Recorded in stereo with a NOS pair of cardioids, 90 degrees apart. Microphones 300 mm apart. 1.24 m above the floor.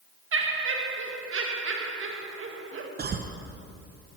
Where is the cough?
30° right, 0.7 m.